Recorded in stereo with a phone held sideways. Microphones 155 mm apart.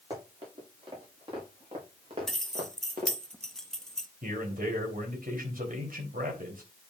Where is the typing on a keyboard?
No typing on a keyboard in this recording.